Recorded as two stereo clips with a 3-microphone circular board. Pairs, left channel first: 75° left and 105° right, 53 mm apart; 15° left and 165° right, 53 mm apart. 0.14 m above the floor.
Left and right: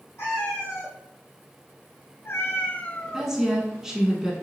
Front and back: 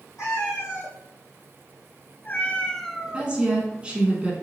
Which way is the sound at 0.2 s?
40° left.